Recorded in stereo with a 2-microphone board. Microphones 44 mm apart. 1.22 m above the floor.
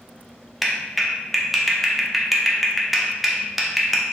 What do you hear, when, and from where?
0.6 s a clap: 5° right (ahead or behind), 0.6 m